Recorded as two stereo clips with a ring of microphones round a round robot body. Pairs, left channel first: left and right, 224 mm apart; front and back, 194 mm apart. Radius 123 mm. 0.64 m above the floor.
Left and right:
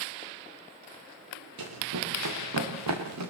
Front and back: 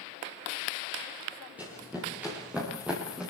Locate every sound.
1.6 s running footsteps: 95° right, 8.5 m